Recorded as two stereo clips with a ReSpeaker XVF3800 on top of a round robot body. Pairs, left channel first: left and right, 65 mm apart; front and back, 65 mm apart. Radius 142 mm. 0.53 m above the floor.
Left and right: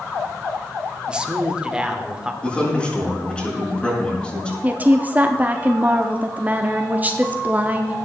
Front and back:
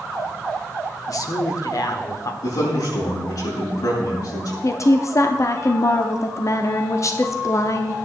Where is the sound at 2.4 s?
15° left, 6.5 m.